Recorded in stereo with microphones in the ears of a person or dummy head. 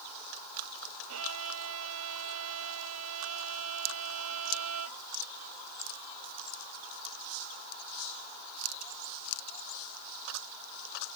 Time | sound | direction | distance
1.1 | a violin | 85° right | ?